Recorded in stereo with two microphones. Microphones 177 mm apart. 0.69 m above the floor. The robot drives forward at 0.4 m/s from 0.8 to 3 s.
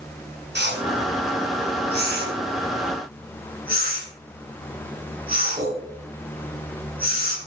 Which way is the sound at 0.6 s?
75° right (ahead or behind).